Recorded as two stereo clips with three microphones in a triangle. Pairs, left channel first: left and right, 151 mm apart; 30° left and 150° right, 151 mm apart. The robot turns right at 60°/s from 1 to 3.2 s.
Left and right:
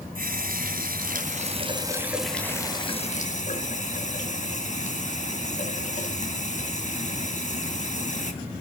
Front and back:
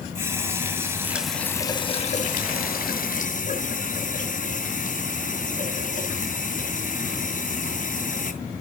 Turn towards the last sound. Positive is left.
turn(degrees=55)